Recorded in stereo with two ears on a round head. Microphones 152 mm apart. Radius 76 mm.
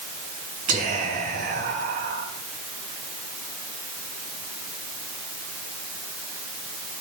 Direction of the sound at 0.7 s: 50° right (ahead or behind).